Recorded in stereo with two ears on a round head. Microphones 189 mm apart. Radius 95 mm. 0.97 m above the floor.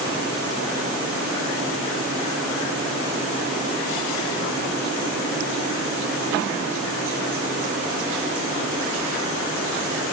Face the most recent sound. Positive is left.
No sound to turn to.